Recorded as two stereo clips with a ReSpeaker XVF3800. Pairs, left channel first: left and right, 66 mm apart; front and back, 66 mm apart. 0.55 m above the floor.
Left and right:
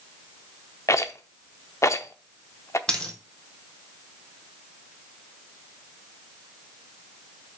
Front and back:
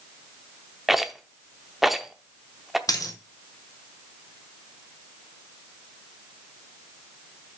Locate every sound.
0.9 s a rattle: 95° left, 0.8 m
2.9 s a dropped coin: 15° left, 1.6 m